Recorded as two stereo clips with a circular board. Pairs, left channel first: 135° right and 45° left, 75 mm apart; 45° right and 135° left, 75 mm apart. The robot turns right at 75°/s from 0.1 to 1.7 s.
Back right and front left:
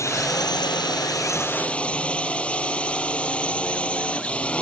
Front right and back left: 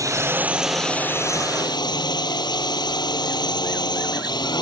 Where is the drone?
Straight behind; by 4.6 s 60° right.